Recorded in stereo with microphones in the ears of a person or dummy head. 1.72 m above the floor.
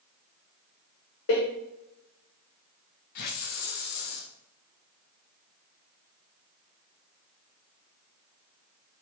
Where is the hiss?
55° left (ahead or behind), 1.2 m.